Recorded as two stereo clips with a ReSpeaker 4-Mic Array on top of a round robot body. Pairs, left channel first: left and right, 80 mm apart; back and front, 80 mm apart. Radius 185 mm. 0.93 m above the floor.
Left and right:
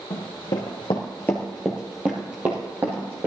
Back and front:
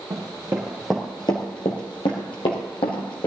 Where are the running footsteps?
50° left, 1.4 m; by 3.3 s 155° right, 2.5 m.